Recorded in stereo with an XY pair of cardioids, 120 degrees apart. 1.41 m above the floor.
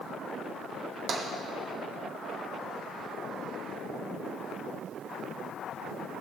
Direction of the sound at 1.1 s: 65° right.